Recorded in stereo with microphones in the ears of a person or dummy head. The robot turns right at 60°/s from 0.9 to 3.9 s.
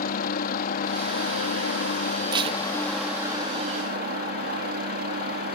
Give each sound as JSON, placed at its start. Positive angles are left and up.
{"t": 0.0, "sound": "a helicopter", "azimuth_deg": 55}
{"t": 2.3, "sound": "tape being pulled", "side_deg": -25}